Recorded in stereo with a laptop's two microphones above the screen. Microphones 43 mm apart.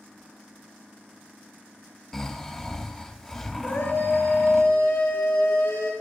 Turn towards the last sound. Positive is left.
turn(degrees=65)  # may be behind; listen again after turning